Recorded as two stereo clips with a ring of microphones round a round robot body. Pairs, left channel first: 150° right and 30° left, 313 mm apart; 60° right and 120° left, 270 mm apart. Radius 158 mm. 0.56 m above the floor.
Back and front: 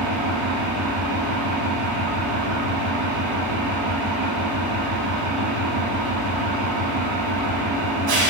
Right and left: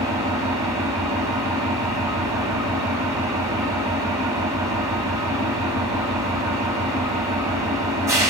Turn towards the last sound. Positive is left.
turn(degrees=40)